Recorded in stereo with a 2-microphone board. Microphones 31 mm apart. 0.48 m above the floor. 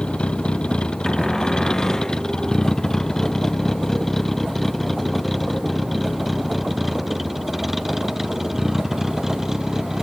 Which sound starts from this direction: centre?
A cupboard door, at 1.1 s.